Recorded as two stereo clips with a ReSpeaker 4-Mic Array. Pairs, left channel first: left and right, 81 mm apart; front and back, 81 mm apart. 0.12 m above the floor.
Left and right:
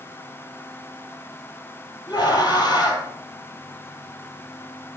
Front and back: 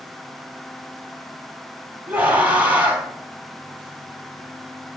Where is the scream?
115° left, 2.5 m.